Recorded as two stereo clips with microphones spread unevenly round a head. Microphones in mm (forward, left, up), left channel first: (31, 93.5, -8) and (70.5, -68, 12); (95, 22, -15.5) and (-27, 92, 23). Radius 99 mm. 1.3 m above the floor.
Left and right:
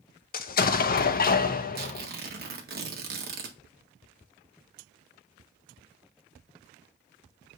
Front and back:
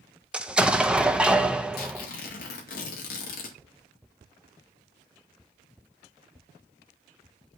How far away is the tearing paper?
About 1.7 m.